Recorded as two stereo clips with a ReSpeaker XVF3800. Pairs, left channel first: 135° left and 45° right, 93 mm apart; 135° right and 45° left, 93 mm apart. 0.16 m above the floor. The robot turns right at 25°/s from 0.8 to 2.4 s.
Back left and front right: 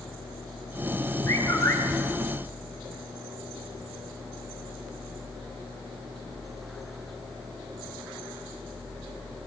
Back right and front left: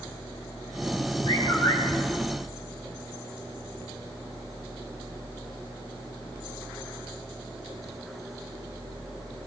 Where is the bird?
155° right, 3.5 m; by 1.8 s 145° right, 3.5 m.